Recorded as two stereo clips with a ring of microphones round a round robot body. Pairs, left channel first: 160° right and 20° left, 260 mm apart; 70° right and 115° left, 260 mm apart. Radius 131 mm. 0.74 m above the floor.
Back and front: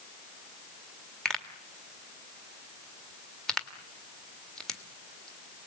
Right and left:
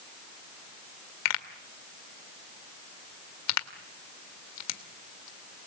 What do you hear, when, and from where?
1.2 s a pop: 70° right, 1.8 m